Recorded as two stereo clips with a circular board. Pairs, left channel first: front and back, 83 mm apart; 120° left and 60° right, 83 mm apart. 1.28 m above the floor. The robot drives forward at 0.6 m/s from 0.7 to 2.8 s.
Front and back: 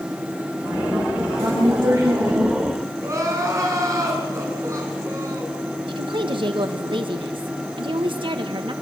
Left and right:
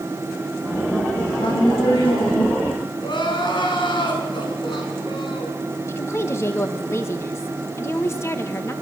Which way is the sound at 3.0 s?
130° left.